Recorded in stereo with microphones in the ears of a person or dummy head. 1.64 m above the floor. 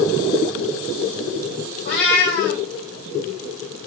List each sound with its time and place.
1.9 s a cat meowing: 65° left (ahead or behind), 1.9 m